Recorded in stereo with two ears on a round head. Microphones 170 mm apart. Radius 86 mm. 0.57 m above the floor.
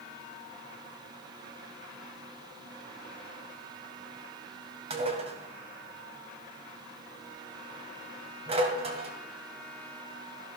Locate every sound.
4.9 s dishes clattering: 35° right (ahead or behind), 1.9 m